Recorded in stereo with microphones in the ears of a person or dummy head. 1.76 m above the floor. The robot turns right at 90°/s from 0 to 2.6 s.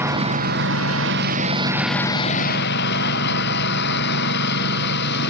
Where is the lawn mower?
170° right; by 5.3 s 65° left.